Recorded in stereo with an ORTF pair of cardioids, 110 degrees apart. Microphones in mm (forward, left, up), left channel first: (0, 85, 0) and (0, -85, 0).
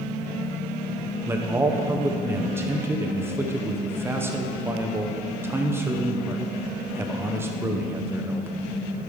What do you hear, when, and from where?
1.3 s a man speaking: 15° right, 1.0 m